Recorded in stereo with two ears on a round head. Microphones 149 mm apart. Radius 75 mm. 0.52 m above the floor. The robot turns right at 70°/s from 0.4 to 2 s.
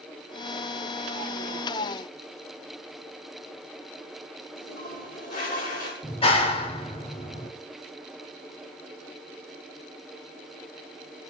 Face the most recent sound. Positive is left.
turn(degrees=35)  # may be behind; listen again after turning